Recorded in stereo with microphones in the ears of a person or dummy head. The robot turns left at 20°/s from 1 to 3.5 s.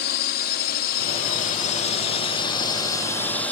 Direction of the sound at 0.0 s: 55° left.